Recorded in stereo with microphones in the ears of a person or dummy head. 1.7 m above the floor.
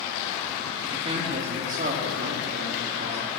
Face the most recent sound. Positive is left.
turn(degrees=-65)  # may be behind; listen again after turning